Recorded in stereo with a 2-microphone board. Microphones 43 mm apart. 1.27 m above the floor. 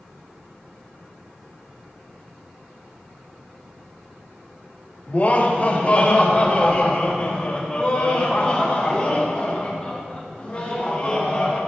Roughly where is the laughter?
Left.